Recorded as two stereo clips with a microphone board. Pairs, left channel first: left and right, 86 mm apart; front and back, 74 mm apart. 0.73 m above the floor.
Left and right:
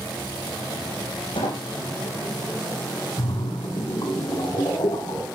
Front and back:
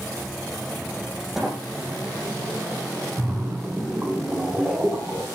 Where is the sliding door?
95° left, 8.5 m.